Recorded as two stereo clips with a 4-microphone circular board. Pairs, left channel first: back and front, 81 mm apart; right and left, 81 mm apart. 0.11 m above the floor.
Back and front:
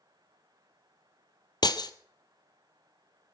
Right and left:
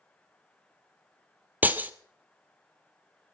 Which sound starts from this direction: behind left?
Breaking glass, at 1.6 s.